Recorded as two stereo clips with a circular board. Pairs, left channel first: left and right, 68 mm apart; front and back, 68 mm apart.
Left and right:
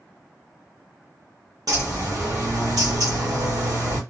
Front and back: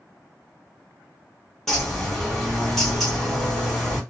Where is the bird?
85° right, 1.3 m.